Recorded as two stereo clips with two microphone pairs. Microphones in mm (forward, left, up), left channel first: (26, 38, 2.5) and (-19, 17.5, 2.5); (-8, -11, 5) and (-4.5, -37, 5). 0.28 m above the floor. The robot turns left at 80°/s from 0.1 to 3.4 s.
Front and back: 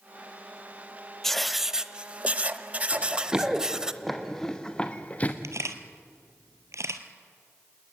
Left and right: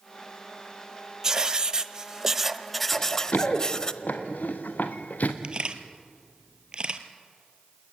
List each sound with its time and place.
1.2 s writing: 50° right, 0.8 m; by 3.9 s 135° left, 0.8 m
2.9 s running footsteps: 165° left, 3 m; by 5.3 s 80° left, 2 m
5.4 s a camera shutter: 140° right, 1.8 m